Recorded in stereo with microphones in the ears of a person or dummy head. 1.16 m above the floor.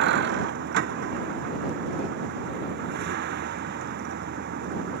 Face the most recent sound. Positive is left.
turn(degrees=-60)  # may be behind; listen again after turning